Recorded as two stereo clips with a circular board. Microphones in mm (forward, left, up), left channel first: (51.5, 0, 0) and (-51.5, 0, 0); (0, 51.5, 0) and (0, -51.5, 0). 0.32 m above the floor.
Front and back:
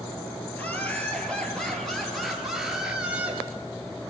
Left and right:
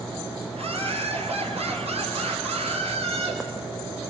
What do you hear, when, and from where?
0.5 s laughter: 75° right, 5 m; by 3.4 s 105° right, 4.5 m